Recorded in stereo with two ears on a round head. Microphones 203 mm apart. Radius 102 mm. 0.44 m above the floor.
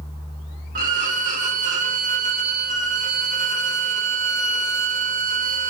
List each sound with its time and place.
0.8 s a violin: 35° right (ahead or behind), 0.6 m